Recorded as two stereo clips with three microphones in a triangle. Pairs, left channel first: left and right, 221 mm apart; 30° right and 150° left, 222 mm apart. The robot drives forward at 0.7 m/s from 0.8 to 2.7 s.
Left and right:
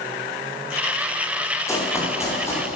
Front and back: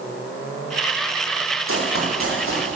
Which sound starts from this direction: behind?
Running footsteps, at 1.7 s.